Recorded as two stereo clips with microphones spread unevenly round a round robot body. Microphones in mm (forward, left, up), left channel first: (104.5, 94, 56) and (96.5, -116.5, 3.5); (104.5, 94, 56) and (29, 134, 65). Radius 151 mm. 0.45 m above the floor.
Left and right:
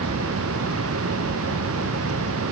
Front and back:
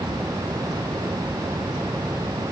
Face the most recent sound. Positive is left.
No sound to turn to.